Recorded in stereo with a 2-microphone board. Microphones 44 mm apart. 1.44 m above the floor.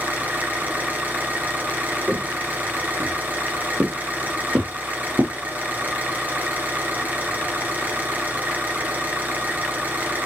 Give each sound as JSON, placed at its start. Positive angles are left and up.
{"t": 0.0, "sound": "an engine running", "side_deg": -40, "distance_m": 3.5}
{"t": 2.1, "sound": "footsteps", "side_deg": -30, "distance_m": 4.5}